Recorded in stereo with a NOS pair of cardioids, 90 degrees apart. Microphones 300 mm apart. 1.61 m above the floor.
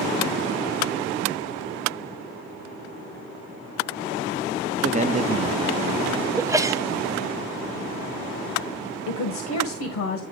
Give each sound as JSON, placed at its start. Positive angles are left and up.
{"t": 4.8, "sound": "a man speaking", "azimuth_deg": -25, "distance_m": 0.7}
{"t": 6.4, "sound": "a sneeze", "azimuth_deg": -10, "distance_m": 1.0}
{"t": 9.1, "sound": "a woman speaking", "azimuth_deg": 65, "distance_m": 1.5}